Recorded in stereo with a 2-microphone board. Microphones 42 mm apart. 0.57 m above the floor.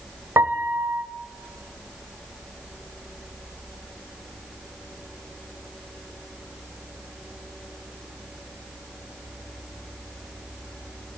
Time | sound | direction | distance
0.4 | a piano | 80° right | 0.9 m